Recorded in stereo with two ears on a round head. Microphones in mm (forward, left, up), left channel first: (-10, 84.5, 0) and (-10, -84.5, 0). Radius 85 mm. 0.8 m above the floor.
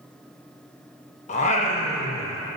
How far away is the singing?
About 0.7 m.